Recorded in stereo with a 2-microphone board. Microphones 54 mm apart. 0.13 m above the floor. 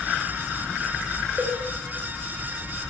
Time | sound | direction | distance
1.4 | a cowbell | 35° right (ahead or behind) | 8 m